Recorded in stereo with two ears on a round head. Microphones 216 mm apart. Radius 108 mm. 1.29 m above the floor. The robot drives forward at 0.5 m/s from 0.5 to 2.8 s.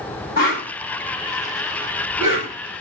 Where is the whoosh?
40° left (ahead or behind), 1.3 m; by 2.5 s 30° left (ahead or behind), 1.7 m.